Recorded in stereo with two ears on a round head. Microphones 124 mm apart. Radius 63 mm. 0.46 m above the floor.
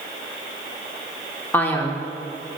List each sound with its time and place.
1.5 s a man speaking: 15° left (ahead or behind), 1.0 m